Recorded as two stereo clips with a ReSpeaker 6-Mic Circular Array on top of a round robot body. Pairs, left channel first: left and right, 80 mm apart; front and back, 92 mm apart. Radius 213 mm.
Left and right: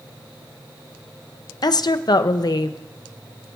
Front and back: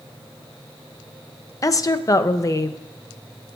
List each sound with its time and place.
1.6 s a woman speaking: 55° left, 0.6 m